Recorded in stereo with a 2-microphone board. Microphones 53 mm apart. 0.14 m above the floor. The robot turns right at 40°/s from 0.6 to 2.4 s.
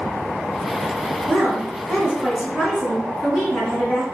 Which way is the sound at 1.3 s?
25° right (ahead or behind).